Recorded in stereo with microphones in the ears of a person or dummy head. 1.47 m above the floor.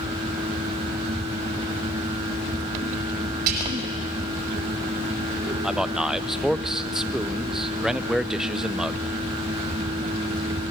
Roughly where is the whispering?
Right.